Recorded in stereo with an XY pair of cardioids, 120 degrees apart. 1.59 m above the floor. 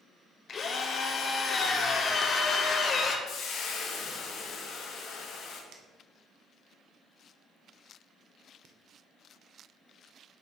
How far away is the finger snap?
About 1.1 m.